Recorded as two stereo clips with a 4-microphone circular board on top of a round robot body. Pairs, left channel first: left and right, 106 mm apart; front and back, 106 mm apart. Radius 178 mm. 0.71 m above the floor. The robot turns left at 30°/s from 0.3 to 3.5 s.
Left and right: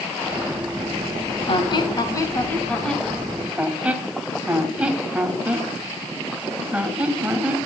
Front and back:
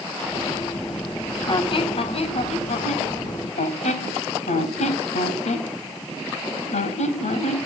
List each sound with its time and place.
1.5 s a squeak: 50° left, 3 m; by 7.7 s 10° right, 3 m